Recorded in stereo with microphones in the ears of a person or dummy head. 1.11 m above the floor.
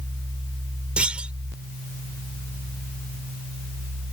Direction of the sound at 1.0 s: 10° right (ahead or behind).